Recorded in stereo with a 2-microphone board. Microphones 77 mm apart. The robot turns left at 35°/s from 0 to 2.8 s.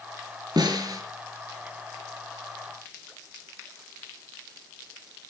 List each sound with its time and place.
0.6 s a snare drum: 60° right (ahead or behind), 3 m; by 1.0 s 50° right (ahead or behind), 3 m